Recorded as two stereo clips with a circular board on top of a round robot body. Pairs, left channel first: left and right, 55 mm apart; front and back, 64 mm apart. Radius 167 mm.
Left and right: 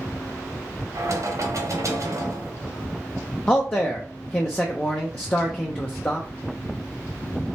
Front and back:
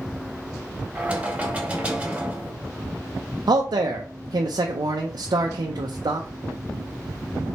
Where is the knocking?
110° right, 1.4 m.